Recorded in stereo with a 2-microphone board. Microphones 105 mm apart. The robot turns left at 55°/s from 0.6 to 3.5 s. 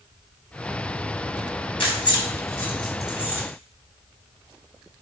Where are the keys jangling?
55° left (ahead or behind), 0.8 m; by 3.4 s 20° right (ahead or behind), 0.8 m.